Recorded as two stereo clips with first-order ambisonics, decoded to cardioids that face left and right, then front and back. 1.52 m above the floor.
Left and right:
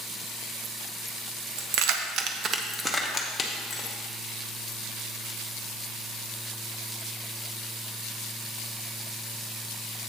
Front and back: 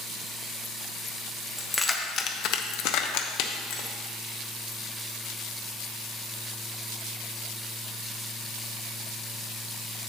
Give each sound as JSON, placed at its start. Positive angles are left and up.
{"t": 1.6, "sound": "keys jangling", "azimuth_deg": -90, "distance_m": 0.8}